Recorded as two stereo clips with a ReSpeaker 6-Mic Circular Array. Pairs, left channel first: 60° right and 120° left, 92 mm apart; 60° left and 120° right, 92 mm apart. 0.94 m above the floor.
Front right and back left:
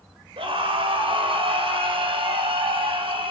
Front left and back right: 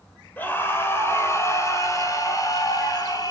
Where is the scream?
130° left, 3 m; by 3.3 s 105° left, 5 m.